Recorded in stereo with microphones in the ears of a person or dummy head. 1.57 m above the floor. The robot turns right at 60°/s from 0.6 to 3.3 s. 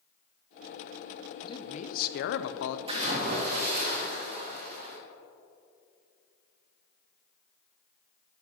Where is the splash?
25° right (ahead or behind), 1.4 m; by 5.0 s 50° right (ahead or behind), 1.4 m.